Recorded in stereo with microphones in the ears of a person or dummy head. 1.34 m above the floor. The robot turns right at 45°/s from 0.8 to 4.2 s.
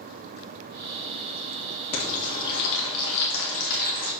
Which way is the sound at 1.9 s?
45° left.